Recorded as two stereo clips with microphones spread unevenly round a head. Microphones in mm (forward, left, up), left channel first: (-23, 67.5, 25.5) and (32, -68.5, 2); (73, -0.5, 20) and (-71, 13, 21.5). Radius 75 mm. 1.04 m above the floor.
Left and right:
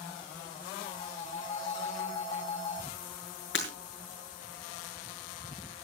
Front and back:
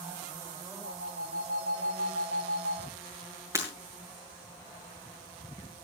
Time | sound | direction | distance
0.8 | a phone ringing | 170° left | 7 m
3.5 | breaking glass | 105° left | 7.5 m